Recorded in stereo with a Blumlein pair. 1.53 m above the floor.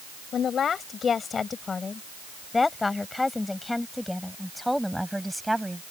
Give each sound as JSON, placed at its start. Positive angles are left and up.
{"t": 0.3, "sound": "a woman speaking", "azimuth_deg": 25}